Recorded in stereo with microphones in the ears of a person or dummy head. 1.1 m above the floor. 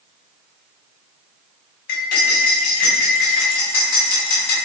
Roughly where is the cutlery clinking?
Left.